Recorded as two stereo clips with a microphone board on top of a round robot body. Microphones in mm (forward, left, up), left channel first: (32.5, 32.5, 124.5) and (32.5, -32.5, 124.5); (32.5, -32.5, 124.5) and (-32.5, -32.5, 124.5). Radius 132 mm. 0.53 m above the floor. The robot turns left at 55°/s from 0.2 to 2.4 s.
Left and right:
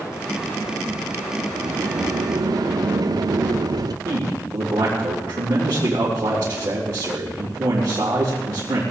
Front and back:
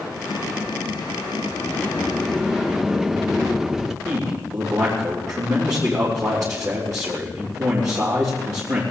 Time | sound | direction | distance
1.6 | a sliding door | 50° right | 1.0 m
4.0 | a man speaking | 140° right | 3.5 m